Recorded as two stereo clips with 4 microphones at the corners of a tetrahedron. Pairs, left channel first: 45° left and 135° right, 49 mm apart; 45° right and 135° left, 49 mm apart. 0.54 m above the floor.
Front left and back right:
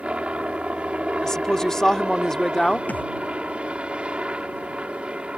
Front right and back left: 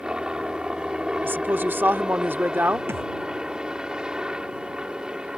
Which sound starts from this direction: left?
A thud, at 2.9 s.